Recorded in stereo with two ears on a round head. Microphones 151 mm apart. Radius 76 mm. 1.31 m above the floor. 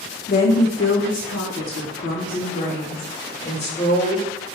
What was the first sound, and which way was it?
A woman speaking, 55° left (ahead or behind).